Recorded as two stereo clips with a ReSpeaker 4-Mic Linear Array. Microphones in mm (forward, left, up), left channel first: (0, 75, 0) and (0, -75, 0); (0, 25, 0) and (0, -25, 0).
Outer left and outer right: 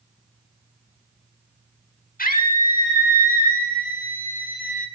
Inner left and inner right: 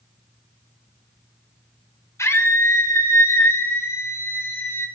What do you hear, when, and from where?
2.2 s a scream: 70° left (ahead or behind), 4.5 m; by 4.9 s 60° left (ahead or behind), 6 m